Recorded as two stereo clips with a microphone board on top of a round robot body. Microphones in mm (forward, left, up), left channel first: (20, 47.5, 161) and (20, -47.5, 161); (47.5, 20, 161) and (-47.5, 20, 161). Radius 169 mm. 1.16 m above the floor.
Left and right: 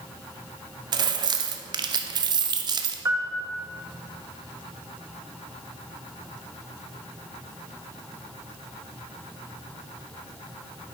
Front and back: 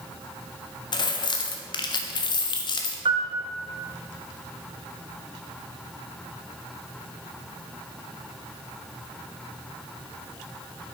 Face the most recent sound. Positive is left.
turn(degrees=-150)